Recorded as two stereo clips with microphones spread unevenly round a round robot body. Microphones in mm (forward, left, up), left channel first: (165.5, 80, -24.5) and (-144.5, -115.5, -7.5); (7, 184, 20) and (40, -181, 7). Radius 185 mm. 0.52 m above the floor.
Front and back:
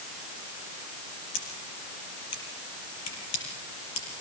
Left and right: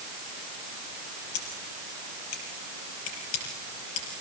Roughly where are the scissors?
Left.